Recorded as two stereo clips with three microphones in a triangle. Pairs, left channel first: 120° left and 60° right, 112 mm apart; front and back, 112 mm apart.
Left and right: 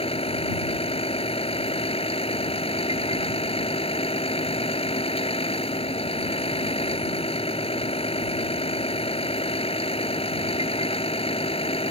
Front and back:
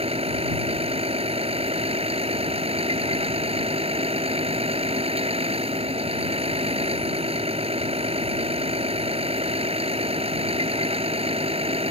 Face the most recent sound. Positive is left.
turn(degrees=150)